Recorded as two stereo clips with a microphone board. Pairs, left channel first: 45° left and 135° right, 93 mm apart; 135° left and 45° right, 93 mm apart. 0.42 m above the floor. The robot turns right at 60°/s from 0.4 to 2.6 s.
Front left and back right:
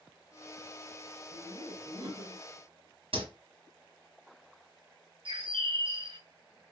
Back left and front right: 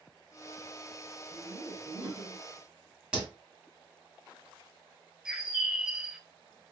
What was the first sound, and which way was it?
Laughter, 135° left.